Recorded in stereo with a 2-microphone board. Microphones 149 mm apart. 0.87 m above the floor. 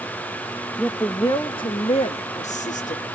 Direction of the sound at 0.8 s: 5° left (ahead or behind).